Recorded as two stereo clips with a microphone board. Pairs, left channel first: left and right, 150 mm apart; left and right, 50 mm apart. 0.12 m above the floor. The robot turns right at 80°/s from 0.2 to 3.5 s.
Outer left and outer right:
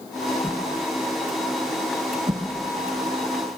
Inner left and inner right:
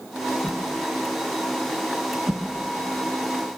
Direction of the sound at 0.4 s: 10° left (ahead or behind).